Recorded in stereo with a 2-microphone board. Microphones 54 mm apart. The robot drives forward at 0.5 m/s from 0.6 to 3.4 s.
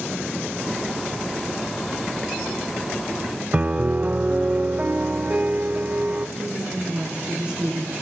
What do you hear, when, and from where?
3.5 s a piano: 30° right (ahead or behind), 0.8 m
6.4 s a woman speaking: 20° right (ahead or behind), 7 m